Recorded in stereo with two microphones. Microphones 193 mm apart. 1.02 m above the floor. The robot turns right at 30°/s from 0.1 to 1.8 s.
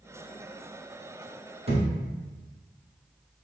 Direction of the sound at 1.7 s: 30° right (ahead or behind).